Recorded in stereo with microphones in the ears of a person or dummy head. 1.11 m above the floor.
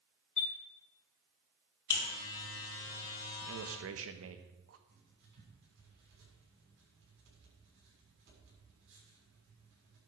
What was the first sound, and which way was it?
A chime, 5° left (ahead or behind).